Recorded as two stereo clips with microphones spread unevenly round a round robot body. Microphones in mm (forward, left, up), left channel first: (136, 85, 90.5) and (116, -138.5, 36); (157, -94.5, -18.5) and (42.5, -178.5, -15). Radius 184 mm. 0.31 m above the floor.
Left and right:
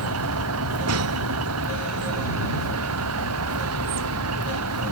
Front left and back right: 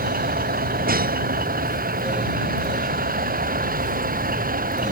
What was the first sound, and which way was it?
A vehicle, 130° right.